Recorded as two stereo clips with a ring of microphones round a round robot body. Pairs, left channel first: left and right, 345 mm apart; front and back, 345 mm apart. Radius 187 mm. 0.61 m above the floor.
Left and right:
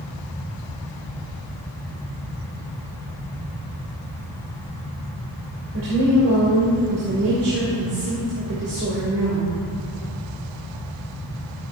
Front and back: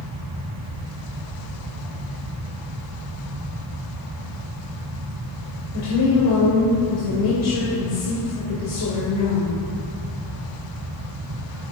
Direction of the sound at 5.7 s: 40° right.